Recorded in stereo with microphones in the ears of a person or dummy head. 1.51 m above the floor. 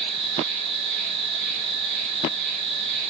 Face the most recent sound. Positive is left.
turn(degrees=-35)  # may be behind; listen again after turning